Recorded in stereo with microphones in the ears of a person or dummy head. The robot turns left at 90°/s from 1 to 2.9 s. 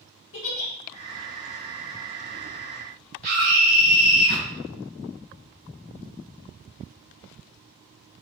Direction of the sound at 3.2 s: 45° right (ahead or behind).